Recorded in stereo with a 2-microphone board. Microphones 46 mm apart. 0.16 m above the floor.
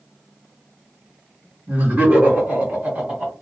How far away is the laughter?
About 1.7 m.